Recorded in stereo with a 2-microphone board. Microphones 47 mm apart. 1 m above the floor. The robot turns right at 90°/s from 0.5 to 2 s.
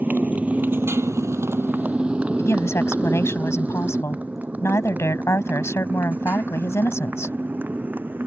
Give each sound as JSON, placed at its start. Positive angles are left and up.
{"t": 0.0, "sound": "a motorcycle", "side_deg": -35}
{"t": 2.4, "sound": "a woman speaking", "side_deg": 80}